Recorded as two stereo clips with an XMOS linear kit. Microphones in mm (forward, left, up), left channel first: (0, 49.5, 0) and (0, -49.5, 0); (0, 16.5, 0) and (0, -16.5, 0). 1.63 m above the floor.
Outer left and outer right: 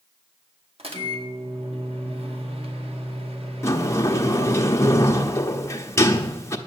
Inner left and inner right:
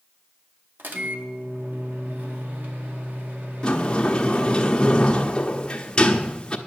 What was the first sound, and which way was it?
A microwave, 80° right.